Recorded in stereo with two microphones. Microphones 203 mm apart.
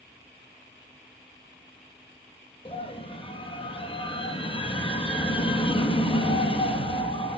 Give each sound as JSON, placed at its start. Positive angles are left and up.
{"t": 2.6, "sound": "a scream", "side_deg": 25, "distance_m": 3.0}